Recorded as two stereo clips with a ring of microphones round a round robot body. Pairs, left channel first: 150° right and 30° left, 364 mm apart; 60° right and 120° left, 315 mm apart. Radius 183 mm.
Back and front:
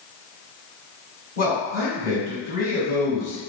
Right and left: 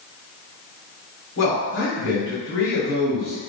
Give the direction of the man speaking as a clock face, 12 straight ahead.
3 o'clock.